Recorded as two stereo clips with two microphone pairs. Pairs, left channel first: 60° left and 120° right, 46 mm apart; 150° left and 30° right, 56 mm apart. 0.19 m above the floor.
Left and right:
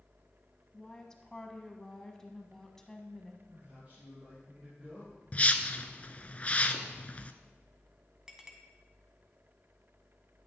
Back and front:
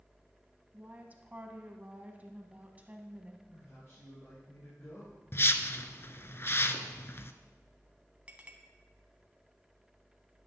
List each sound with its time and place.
0.7 s a woman speaking: 5° right, 1.1 m
3.5 s a man speaking: straight behind, 4 m
5.3 s a whoosh: 110° left, 0.6 m
8.3 s a clink: 60° right, 0.9 m